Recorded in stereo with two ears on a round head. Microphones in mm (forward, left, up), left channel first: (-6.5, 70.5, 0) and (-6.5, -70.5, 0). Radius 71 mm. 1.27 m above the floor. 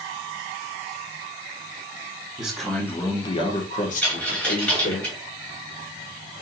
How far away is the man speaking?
About 1.1 m.